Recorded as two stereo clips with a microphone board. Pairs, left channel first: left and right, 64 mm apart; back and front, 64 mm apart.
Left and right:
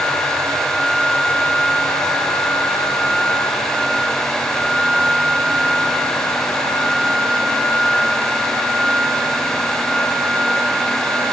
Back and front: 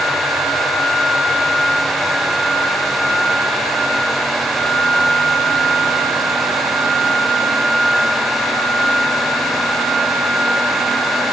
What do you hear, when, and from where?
Only background noise.